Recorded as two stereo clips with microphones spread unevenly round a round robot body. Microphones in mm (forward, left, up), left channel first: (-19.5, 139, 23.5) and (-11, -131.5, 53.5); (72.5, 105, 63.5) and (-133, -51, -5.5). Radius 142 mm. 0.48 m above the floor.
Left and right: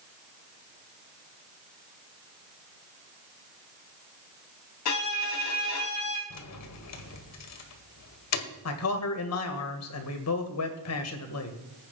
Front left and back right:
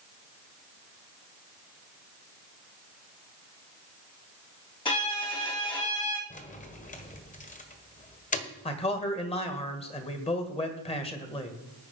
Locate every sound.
4.8 s a violin: 115° left, 3.5 m
6.3 s keys jangling: 105° left, 1.7 m
8.7 s a man speaking: 110° left, 2 m